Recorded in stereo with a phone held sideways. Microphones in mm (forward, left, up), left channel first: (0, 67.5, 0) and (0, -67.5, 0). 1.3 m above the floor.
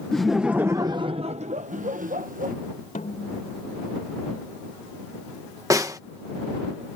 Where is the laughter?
5° left (ahead or behind); by 2.5 s 80° right.